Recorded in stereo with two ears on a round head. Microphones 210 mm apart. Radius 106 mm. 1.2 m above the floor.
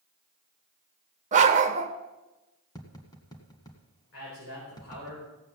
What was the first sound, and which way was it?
A dog barking, 30° right (ahead or behind).